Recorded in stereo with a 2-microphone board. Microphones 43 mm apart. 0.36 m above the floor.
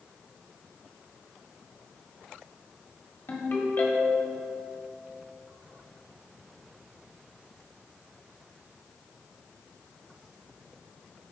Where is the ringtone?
55° left (ahead or behind), 1.4 m.